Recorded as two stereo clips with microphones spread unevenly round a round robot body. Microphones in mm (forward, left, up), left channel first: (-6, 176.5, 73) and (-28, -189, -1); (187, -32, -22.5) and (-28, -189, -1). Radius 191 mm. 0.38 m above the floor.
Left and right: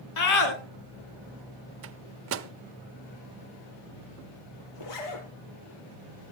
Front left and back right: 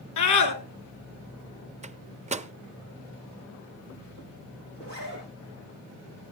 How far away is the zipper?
About 4.5 m.